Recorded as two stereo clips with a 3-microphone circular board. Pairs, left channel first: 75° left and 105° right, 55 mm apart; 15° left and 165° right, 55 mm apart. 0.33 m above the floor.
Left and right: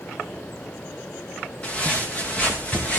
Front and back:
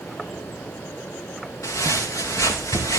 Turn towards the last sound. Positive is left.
turn(degrees=10)